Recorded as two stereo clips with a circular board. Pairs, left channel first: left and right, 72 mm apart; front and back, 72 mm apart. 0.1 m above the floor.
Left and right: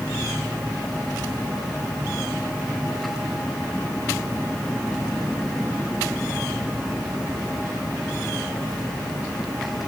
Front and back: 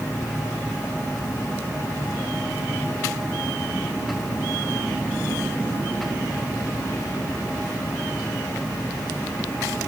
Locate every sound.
Only background noise.